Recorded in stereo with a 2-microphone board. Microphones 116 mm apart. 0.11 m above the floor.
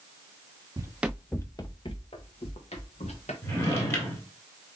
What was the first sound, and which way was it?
Running footsteps, 30° right (ahead or behind).